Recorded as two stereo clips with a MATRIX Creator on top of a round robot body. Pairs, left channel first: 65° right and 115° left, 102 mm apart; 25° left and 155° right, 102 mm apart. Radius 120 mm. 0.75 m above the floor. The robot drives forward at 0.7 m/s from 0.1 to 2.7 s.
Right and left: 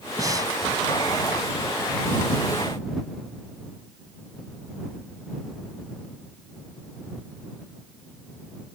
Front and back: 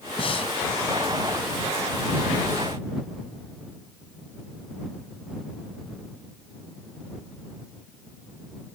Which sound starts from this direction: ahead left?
Breathing, at 0.2 s.